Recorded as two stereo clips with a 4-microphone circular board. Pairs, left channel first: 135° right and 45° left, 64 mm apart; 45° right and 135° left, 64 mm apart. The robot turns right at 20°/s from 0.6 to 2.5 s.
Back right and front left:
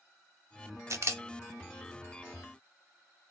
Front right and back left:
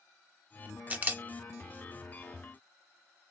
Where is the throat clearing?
I don't hear throat clearing.